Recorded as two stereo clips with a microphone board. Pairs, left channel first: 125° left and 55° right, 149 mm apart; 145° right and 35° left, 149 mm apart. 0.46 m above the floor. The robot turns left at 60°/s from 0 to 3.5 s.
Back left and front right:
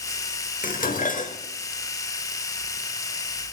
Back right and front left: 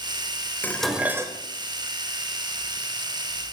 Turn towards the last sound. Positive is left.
turn(degrees=-35)